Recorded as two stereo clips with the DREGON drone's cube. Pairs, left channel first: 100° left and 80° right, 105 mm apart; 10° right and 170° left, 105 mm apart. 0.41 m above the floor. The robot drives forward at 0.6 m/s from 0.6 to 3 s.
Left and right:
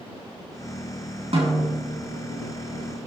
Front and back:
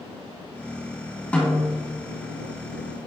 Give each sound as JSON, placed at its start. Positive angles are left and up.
{"t": 1.3, "sound": "a snare drum", "azimuth_deg": -85, "distance_m": 3.5}